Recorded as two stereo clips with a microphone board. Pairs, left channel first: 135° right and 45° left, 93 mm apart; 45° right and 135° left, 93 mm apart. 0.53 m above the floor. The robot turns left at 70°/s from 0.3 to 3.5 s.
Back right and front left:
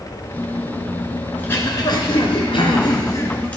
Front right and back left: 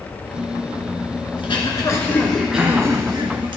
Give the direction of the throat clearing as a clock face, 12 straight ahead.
2 o'clock.